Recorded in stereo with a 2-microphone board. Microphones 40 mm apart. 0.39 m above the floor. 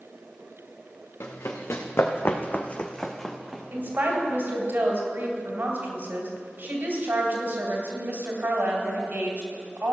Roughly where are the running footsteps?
Left.